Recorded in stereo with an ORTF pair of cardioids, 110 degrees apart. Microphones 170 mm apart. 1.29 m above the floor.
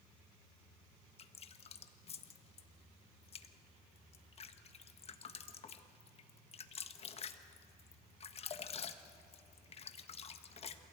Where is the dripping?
35° left, 1.3 m.